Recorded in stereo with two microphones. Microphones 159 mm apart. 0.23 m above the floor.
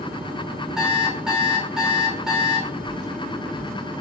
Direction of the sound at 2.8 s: 35° left (ahead or behind).